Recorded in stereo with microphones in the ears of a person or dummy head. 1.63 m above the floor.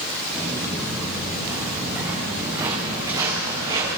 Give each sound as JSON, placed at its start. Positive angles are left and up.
{"t": 0.3, "sound": "footsteps", "side_deg": 5, "distance_m": 7.0}